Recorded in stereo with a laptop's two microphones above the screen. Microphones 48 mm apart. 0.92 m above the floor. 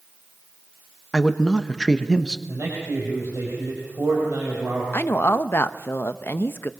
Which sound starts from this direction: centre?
A man speaking, at 1.1 s.